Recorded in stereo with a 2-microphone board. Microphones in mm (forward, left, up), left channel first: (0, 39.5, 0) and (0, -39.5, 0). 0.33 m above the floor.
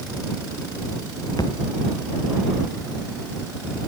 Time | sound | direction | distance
1.4 | a thud | 60° left (ahead or behind) | ?